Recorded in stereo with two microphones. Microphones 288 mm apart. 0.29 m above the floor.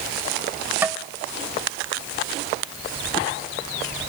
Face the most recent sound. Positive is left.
turn(degrees=-5)  # may be behind; listen again after turning